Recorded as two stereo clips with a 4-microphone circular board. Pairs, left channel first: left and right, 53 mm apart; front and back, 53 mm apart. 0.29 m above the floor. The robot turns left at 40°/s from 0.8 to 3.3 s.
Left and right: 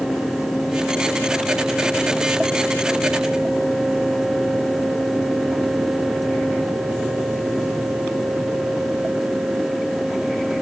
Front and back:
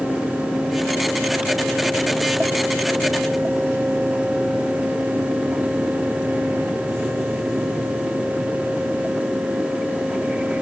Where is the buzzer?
I don't hear a buzzer.